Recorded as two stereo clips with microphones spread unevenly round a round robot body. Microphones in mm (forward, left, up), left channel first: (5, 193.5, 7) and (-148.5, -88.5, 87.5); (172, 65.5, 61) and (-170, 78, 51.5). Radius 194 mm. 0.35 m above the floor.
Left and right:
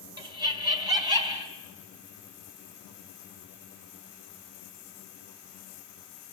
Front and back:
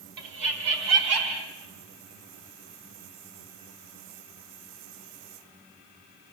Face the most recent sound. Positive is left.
turn(degrees=160)